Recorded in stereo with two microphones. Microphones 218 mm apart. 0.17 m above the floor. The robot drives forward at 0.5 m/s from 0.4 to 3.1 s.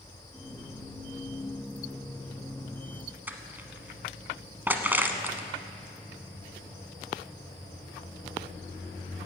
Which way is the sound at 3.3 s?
10° right (ahead or behind).